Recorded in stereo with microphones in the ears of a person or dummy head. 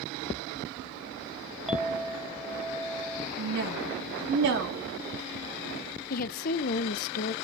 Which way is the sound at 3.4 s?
60° right (ahead or behind).